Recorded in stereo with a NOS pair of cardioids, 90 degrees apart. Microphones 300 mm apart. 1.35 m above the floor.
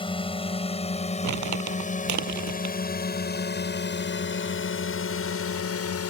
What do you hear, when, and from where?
0.0 s a drone: 15° left; by 6.1 s 50° left
1.2 s crumpling: 60° right